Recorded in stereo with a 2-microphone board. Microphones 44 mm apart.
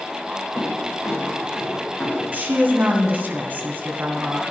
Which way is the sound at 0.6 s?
80° left.